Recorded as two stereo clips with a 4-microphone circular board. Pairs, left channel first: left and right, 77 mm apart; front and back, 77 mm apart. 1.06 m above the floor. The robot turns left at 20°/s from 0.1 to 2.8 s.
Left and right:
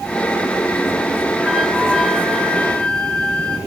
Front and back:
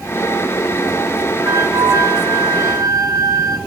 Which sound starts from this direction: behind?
A flute, at 1.4 s.